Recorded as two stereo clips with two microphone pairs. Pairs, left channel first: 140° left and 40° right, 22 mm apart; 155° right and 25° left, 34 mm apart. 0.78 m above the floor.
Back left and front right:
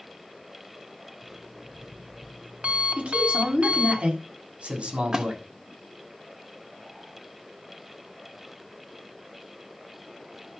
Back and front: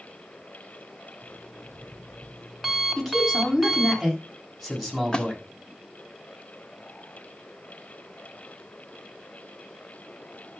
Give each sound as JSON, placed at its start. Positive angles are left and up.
{"t": 1.2, "sound": "an alarm clock", "azimuth_deg": -60, "distance_m": 3.0}
{"t": 3.0, "sound": "a man speaking", "azimuth_deg": -65, "distance_m": 7.5}
{"t": 5.1, "sound": "a splash", "azimuth_deg": -90, "distance_m": 1.8}